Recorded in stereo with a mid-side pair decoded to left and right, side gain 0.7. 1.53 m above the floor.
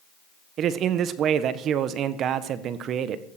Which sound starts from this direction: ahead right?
A man speaking, at 0.6 s.